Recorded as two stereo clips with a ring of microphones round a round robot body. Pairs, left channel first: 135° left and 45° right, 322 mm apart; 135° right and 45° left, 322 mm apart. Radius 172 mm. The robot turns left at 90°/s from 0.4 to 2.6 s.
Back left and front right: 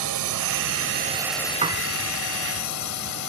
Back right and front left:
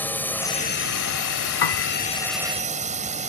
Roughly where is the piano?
Behind right.